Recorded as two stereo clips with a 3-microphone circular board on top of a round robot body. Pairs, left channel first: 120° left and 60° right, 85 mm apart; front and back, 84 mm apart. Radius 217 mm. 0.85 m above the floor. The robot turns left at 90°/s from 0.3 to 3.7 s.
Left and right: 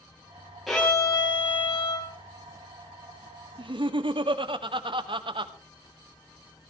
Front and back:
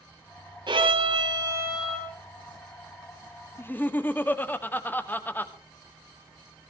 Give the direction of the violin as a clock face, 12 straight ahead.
5 o'clock.